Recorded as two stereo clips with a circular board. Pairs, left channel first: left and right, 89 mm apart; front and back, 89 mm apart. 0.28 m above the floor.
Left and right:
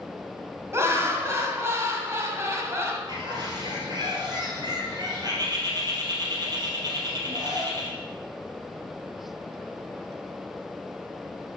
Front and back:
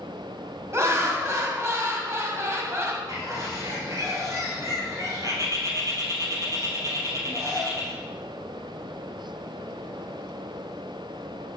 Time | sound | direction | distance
0.7 | laughter | 135° right | 1.8 m
3.1 | a bird | 130° right | 2.5 m